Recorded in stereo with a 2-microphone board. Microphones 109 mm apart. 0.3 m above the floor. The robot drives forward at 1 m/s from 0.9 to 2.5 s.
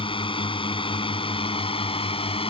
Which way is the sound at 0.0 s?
55° left (ahead or behind).